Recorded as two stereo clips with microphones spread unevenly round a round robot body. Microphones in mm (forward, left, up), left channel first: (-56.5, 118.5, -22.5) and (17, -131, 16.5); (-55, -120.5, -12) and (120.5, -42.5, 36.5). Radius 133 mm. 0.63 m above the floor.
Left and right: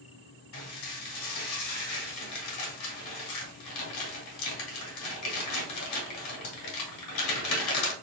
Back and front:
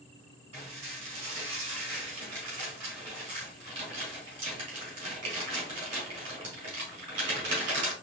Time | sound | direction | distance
0.5 | dishes clattering | 75° left | 2 m